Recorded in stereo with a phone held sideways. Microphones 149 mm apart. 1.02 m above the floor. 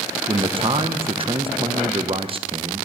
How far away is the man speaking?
About 0.7 m.